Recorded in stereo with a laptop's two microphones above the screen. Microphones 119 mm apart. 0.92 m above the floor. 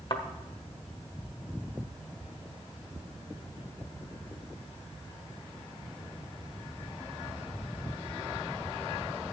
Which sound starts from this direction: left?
A thud, at 0.1 s.